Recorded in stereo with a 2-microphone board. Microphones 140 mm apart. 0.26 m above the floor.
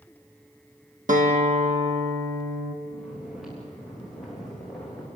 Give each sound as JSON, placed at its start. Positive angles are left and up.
{"t": 1.1, "sound": "a guitar", "side_deg": -75, "distance_m": 2.0}
{"t": 2.9, "sound": "snoring", "side_deg": 0, "distance_m": 7.0}